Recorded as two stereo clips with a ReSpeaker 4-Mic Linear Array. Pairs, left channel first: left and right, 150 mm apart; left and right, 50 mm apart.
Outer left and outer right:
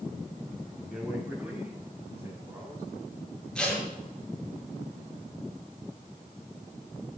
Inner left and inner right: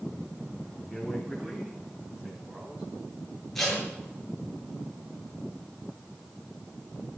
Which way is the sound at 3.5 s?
5° left (ahead or behind).